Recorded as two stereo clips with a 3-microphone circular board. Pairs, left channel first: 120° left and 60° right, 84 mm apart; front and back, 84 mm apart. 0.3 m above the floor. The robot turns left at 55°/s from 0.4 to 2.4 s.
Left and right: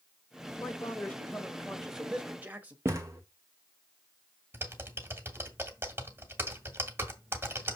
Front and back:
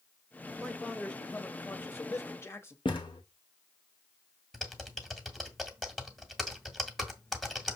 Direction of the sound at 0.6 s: 95° left.